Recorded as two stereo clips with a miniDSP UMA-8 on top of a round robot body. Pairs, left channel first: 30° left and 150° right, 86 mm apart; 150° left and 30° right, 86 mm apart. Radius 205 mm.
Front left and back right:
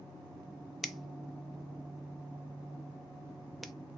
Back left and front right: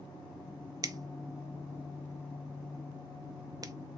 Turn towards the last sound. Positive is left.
turn(degrees=-60)